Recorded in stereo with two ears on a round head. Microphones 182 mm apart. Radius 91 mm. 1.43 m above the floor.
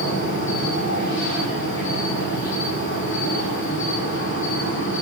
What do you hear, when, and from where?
0.0 s an insect: 65° left (ahead or behind), 6.5 m